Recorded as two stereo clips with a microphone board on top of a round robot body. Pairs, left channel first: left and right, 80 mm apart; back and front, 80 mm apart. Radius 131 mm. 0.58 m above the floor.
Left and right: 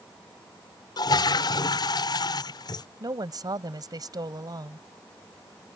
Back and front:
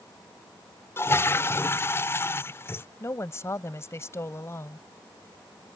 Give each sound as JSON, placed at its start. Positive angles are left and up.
{"t": 1.0, "sound": "a toilet flushing", "azimuth_deg": 120}
{"t": 3.0, "sound": "a woman speaking", "azimuth_deg": -125}